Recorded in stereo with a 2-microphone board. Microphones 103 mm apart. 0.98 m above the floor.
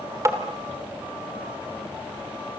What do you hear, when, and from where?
0.2 s tapping: 30° right (ahead or behind), 2 m